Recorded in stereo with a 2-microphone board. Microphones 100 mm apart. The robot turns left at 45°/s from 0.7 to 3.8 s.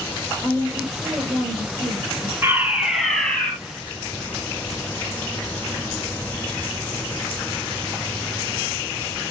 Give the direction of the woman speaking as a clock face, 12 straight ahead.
12 o'clock.